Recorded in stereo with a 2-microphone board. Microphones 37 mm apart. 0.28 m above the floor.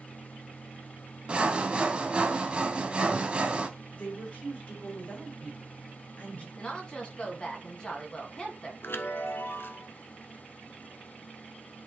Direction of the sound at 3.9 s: 35° left (ahead or behind).